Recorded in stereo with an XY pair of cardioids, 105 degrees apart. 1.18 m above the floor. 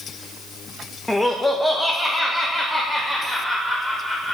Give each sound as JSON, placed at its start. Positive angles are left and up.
{"t": 1.1, "sound": "laughter", "azimuth_deg": 10, "distance_m": 1.1}